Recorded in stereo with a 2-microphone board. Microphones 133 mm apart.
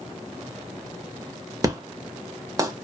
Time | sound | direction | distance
1.6 | an explosion | 25° right (ahead or behind) | 0.6 m